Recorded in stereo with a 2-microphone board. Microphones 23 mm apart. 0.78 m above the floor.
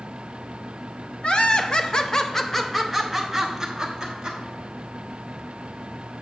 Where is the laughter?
50° left (ahead or behind), 0.8 m; by 4.4 s 25° right (ahead or behind), 1.4 m.